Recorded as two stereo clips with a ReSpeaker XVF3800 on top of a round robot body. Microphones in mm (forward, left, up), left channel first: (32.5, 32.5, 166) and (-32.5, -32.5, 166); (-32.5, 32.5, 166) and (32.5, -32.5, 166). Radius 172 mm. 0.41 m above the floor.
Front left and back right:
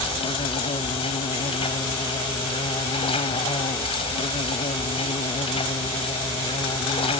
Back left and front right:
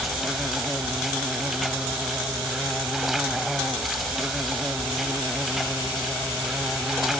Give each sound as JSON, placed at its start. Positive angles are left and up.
{"t": 0.0, "sound": "an insect", "azimuth_deg": 45}